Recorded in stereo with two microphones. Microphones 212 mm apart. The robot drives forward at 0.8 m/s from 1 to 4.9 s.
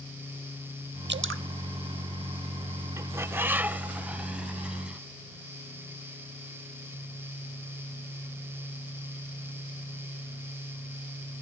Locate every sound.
1.1 s dripping: 55° right (ahead or behind), 0.6 m; by 1.4 s 80° right, 0.5 m
3.0 s a bird: 15° right (ahead or behind), 0.5 m; by 5.0 s 5° right (ahead or behind), 1.8 m